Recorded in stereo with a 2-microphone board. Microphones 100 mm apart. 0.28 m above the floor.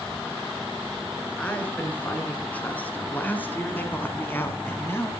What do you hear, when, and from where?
1.4 s a woman speaking: 15° left (ahead or behind), 4 m; by 5.1 s 25° left (ahead or behind), 2 m